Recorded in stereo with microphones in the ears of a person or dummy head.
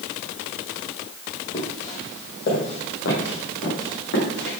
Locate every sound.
1.5 s footsteps: 45° left (ahead or behind), 4 m; by 4.6 s 75° left (ahead or behind), 6.5 m